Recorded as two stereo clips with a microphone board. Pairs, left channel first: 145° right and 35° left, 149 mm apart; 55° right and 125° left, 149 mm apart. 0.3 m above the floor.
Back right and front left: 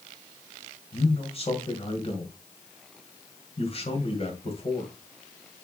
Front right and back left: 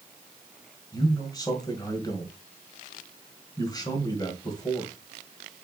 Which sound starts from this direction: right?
A man speaking, at 0.9 s.